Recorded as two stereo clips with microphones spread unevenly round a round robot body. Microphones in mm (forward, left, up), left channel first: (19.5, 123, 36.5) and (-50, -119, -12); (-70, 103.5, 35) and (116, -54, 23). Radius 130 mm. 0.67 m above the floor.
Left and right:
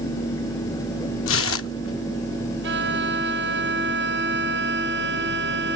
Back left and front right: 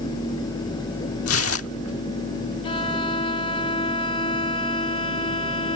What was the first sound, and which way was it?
Tearing paper, 115° left.